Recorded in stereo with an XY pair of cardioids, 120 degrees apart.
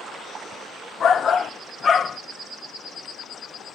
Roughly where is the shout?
Ahead left.